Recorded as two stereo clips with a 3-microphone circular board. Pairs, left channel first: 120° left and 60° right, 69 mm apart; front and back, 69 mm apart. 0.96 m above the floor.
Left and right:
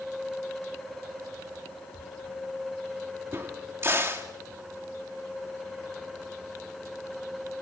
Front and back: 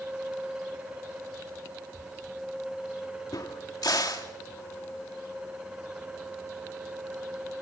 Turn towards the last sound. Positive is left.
turn(degrees=-10)